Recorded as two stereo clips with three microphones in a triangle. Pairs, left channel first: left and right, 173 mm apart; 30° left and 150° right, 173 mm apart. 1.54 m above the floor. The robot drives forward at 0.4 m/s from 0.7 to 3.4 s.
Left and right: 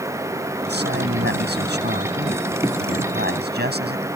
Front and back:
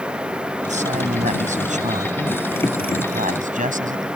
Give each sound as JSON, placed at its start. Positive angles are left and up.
{"t": 0.7, "sound": "a man speaking", "azimuth_deg": -105}